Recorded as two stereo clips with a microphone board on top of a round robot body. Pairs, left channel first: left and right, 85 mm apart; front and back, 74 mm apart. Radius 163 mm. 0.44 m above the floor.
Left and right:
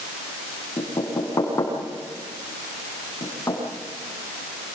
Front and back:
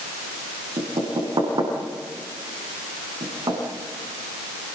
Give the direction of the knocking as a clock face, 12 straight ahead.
7 o'clock.